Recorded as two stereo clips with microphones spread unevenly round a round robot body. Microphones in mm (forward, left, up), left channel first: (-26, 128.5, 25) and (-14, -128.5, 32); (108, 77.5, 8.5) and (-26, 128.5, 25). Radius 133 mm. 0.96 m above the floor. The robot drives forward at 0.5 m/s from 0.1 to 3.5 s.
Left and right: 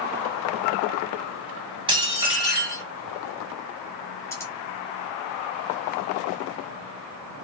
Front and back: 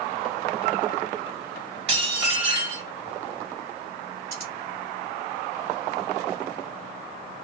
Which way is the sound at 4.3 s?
170° left.